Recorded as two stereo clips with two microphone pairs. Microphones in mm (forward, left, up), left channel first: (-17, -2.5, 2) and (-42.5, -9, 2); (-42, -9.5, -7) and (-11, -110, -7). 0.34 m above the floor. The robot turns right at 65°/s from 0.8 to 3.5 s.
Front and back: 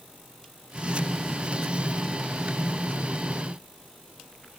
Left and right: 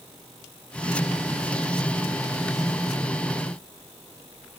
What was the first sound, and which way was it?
Only background noise.